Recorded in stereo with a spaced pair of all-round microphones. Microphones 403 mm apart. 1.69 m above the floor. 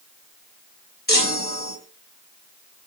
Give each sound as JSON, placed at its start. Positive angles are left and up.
{"t": 1.1, "sound": "a chime", "side_deg": 25, "distance_m": 5.5}